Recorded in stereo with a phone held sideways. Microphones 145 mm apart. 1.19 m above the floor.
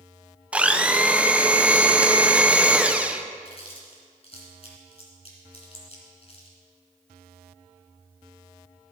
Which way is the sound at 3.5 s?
45° left (ahead or behind).